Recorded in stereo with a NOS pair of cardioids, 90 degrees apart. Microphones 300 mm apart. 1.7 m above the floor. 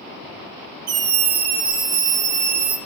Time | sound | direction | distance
0.9 | a scream | 55° right | 3 m